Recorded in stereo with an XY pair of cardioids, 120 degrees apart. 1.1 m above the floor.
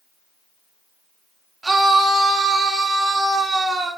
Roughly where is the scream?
Ahead.